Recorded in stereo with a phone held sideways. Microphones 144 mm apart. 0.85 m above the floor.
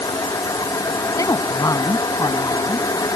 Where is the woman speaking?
25° left (ahead or behind).